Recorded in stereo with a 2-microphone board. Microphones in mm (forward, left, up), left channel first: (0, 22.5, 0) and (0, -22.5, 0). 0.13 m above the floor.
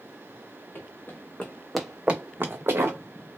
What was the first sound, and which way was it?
Running footsteps, 50° left (ahead or behind).